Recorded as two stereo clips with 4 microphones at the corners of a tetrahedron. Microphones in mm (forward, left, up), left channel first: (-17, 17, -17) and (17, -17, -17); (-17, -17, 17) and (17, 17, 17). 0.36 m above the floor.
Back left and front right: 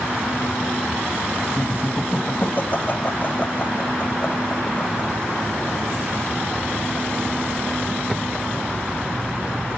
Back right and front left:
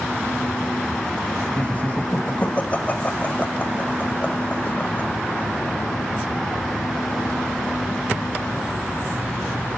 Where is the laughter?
170° left, 1.4 m.